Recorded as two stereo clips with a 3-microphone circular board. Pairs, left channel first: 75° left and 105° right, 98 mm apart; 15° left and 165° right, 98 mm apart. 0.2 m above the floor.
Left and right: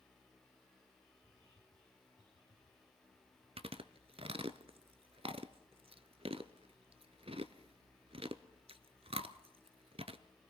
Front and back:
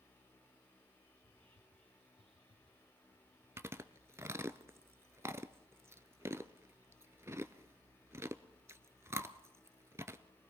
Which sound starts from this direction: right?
Chewing, at 3.6 s.